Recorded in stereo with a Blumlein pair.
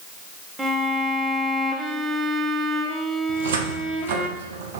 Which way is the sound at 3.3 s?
55° right.